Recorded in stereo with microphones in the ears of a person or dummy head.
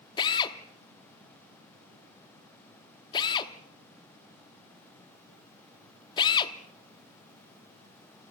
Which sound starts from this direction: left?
A drill, at 0.2 s.